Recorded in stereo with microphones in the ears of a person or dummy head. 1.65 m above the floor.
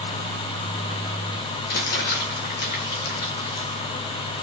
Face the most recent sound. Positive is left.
turn(degrees=45)  # may be behind; listen again after turning